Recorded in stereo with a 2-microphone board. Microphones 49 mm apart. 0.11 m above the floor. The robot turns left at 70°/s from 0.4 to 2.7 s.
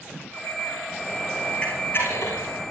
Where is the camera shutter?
25° left (ahead or behind), 7 m; by 2.7 s 75° left (ahead or behind), 7 m.